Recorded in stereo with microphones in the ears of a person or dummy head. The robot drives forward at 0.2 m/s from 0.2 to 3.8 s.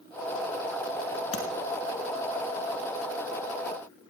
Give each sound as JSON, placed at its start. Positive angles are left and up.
{"t": 1.3, "sound": "tapping", "side_deg": 30, "distance_m": 2.0}